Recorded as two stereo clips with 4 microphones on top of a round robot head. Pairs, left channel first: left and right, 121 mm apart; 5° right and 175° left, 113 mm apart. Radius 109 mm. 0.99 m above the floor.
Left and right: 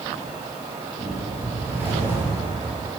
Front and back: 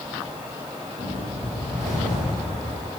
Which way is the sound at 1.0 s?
160° right.